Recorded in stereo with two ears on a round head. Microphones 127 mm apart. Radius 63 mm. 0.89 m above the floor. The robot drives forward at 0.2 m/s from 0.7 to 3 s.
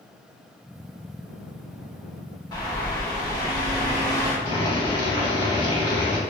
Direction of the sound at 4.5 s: 35° left (ahead or behind).